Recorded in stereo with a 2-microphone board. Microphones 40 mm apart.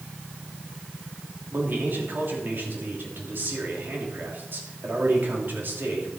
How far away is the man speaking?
About 3 m.